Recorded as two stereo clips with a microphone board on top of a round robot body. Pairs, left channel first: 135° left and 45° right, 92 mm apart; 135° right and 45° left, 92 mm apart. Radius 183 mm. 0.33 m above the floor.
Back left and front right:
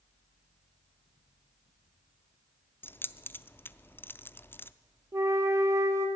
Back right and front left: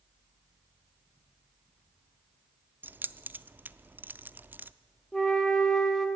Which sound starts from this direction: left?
Keys jangling, at 2.8 s.